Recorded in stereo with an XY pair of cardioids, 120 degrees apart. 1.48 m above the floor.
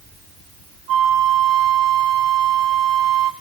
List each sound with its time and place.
0.9 s a flute: 65° right, 0.8 m